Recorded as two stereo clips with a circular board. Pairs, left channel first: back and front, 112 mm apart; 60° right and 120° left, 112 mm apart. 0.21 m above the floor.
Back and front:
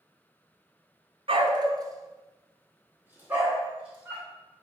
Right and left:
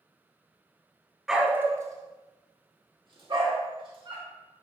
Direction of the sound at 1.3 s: 35° left.